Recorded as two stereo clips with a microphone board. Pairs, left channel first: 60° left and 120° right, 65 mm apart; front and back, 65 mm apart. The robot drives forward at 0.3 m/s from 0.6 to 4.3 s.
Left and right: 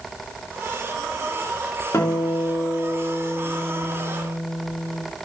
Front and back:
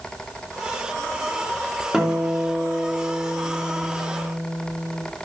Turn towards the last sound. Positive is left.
turn(degrees=115)